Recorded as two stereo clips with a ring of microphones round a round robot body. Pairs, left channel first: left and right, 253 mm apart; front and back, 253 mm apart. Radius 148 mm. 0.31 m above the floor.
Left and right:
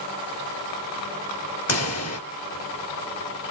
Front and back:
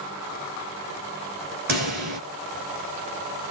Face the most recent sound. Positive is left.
turn(degrees=120)